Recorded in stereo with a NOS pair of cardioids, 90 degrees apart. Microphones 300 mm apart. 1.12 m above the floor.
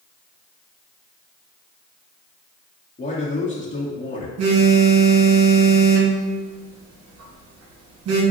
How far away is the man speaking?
About 1.2 m.